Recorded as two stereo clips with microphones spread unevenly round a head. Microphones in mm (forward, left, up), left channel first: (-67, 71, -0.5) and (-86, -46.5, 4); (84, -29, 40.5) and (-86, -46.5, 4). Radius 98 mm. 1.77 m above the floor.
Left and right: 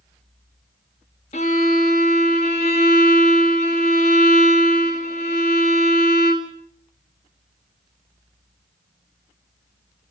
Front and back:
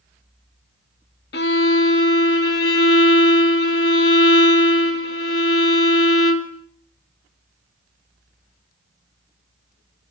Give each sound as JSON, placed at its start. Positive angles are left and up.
{"t": 1.3, "sound": "a violin", "azimuth_deg": 30, "distance_m": 2.0}